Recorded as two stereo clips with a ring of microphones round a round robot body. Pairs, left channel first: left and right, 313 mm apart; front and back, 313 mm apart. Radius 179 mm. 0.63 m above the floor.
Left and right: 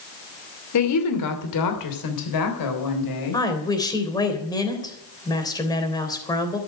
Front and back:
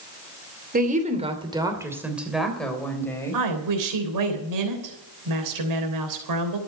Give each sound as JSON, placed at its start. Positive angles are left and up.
{"t": 0.7, "sound": "a woman speaking", "azimuth_deg": 120, "distance_m": 2.5}
{"t": 3.3, "sound": "a woman speaking", "azimuth_deg": 170, "distance_m": 3.5}